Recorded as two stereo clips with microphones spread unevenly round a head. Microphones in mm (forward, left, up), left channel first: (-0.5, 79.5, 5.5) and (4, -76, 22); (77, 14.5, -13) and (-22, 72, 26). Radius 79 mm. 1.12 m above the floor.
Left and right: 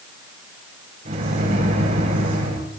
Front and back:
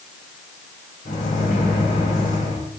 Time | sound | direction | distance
1.1 | a microwave | 55° right | 5.5 m